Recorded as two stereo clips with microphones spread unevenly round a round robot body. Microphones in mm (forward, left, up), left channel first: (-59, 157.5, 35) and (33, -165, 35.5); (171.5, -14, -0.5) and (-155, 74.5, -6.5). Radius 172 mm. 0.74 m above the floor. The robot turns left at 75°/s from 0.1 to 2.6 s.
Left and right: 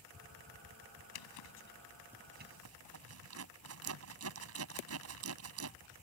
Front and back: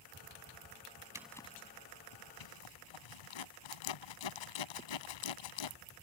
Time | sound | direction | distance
1.1 | a zipper | 85° left | ?